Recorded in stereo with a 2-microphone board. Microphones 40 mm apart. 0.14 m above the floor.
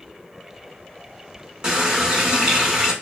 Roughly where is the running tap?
Right.